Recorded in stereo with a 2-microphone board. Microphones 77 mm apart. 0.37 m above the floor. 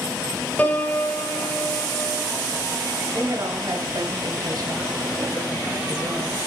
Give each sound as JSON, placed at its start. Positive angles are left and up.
{"t": 0.6, "sound": "a piano", "side_deg": 25, "distance_m": 1.0}
{"t": 3.1, "sound": "a woman speaking", "side_deg": -60, "distance_m": 1.9}